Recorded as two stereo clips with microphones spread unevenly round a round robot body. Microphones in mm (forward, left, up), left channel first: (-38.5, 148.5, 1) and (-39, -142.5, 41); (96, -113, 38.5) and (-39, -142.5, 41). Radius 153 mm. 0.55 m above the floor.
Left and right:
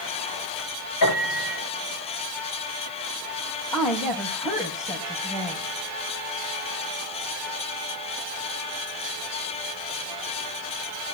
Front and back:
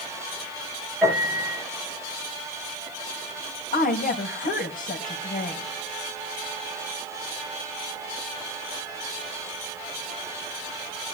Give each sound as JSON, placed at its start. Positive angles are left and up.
{"t": 1.0, "sound": "a piano", "azimuth_deg": 105, "distance_m": 9.5}
{"t": 3.7, "sound": "a woman speaking", "azimuth_deg": 15, "distance_m": 3.5}